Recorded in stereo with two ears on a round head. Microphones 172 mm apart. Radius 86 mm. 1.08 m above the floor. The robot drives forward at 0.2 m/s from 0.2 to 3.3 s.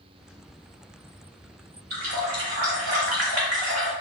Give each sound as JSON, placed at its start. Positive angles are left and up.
{"t": 1.9, "sound": "a running tap", "side_deg": -75, "distance_m": 1.8}